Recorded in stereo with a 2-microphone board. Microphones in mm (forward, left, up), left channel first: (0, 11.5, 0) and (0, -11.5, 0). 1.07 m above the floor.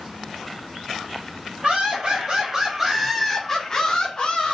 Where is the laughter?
45° right (ahead or behind), 1.0 m; by 4.5 s 50° left (ahead or behind), 1.1 m.